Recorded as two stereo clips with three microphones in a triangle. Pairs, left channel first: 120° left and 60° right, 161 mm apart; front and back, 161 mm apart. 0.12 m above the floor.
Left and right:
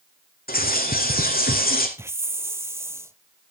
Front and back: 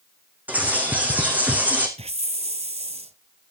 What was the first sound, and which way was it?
A bird, 100° left.